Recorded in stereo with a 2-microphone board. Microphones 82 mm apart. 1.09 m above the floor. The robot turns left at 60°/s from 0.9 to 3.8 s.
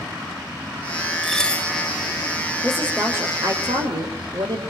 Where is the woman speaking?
5° left, 3.5 m; by 4.6 s 65° right, 3.5 m.